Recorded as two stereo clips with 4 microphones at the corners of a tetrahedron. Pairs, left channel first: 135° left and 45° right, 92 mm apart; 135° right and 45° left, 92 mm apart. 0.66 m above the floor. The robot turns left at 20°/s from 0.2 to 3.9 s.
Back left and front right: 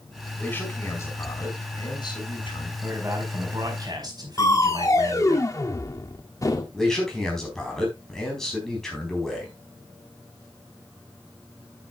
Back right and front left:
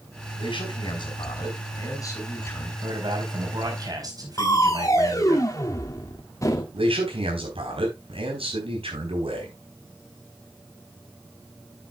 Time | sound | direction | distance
0.4 | a man speaking | 155° right | 4.5 m
2.8 | a man speaking | 20° left | 4.5 m
4.4 | crushing | straight behind | 1.5 m
6.7 | a man speaking | 50° left | 4.5 m